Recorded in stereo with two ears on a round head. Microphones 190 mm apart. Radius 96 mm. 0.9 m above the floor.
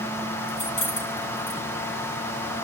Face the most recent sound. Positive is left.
turn(degrees=70)  # may be behind; listen again after turning